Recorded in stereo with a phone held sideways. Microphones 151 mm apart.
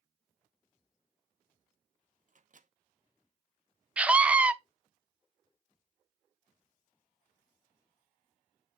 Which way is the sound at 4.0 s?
10° right (ahead or behind).